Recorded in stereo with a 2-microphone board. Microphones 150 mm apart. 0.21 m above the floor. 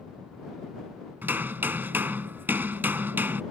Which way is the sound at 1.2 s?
15° right (ahead or behind).